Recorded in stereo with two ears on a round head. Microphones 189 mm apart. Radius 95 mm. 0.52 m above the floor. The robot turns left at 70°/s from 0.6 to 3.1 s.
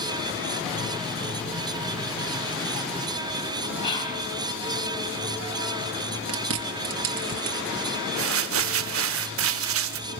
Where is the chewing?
70° right (ahead or behind), 3.5 m.